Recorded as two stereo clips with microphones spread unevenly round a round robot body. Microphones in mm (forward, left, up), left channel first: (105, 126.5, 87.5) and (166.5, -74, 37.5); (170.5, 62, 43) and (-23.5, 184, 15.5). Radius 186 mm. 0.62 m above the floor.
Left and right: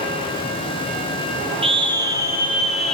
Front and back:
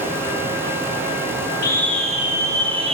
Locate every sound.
1.6 s a scream: 110° right, 1.1 m; by 3.0 s 155° right, 1.2 m